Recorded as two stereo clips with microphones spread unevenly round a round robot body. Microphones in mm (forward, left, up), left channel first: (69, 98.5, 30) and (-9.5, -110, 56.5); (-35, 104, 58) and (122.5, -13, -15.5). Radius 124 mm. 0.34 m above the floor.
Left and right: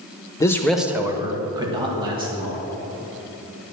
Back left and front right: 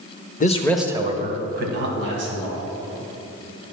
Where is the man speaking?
100° left, 0.8 m; by 2.6 s 40° right, 3 m.